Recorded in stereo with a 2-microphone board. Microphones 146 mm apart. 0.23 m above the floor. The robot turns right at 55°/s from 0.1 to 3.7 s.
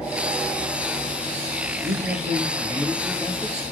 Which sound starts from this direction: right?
A man speaking, at 1.8 s.